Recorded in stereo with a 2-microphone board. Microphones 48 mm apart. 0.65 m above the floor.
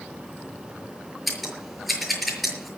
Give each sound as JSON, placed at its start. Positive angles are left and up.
{"t": 1.3, "sound": "scissors", "side_deg": 0, "distance_m": 6.0}